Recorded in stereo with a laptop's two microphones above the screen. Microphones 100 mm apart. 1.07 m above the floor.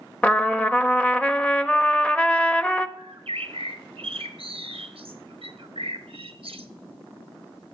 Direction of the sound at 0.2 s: 15° left (ahead or behind).